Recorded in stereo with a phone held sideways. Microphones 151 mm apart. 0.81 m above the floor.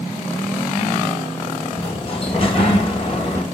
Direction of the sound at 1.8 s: 40° left (ahead or behind).